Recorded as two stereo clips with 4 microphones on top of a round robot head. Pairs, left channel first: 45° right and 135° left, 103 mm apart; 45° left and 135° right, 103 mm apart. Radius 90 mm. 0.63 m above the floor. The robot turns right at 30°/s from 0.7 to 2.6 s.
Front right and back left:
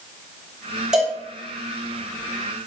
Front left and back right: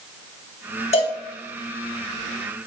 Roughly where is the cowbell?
Ahead left.